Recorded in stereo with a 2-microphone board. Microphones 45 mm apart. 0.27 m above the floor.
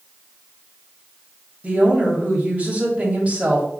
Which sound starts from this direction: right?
A woman speaking, at 1.6 s.